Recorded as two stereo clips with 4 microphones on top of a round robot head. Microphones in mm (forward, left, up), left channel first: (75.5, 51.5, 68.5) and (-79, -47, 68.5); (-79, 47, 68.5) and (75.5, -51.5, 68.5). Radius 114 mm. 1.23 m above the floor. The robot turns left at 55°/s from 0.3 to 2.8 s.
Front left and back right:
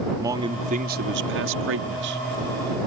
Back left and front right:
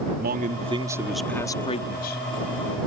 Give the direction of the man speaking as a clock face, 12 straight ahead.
2 o'clock.